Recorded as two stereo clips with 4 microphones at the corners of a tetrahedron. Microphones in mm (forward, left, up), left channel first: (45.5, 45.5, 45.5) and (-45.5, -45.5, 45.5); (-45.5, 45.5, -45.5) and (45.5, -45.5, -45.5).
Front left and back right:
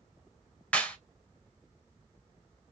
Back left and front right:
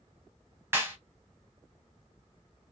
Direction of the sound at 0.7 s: 15° right.